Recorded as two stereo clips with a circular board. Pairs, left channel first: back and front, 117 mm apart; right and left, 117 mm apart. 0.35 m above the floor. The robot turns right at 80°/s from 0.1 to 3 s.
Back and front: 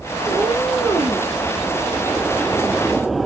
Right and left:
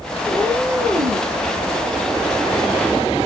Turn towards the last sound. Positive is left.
turn(degrees=-115)